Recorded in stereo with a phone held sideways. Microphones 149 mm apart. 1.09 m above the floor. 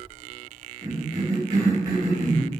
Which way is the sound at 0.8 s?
25° right (ahead or behind).